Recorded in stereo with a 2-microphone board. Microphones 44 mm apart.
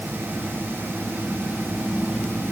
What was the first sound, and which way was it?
Only background noise.